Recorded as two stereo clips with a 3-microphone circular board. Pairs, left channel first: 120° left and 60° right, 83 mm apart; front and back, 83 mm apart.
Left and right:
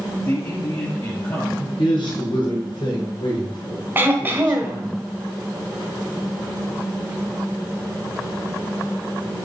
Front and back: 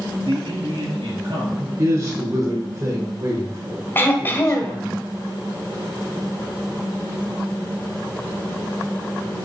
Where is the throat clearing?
25° right, 1.3 m.